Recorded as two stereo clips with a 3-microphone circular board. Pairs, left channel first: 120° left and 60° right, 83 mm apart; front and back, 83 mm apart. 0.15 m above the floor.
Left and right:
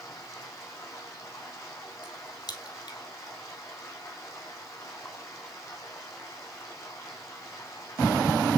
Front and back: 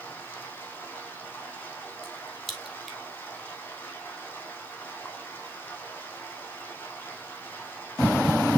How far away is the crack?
About 2.5 m.